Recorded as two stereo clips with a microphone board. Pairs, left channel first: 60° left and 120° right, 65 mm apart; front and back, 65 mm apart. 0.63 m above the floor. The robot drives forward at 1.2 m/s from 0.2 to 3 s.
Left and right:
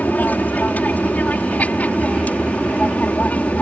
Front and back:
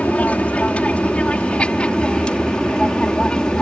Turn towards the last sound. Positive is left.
turn(degrees=55)